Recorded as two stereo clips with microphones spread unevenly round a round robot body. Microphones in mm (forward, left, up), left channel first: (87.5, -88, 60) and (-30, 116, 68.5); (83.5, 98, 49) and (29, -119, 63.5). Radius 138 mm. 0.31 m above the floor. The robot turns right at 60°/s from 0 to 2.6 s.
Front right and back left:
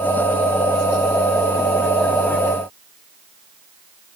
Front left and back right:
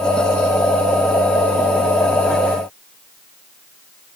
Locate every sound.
Only background noise.